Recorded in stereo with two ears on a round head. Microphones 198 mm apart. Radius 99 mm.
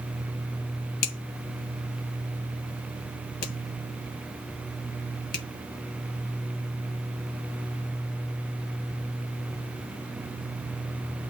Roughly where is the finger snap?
Left.